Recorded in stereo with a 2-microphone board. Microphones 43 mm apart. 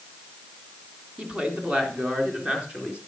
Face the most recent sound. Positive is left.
turn(degrees=-25)  # may be behind; listen again after turning